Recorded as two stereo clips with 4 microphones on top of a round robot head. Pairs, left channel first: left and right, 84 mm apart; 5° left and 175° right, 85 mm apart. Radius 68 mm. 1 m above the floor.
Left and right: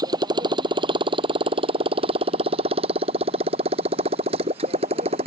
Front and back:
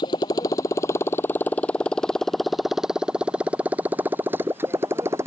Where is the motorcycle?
50° right; by 5.3 s 110° right.